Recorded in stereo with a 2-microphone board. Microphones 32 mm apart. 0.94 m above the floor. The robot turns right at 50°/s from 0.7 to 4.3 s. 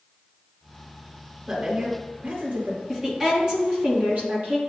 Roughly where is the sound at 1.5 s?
Behind.